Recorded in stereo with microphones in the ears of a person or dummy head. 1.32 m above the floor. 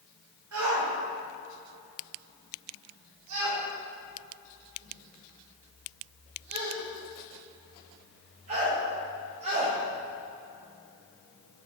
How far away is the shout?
About 5.5 m.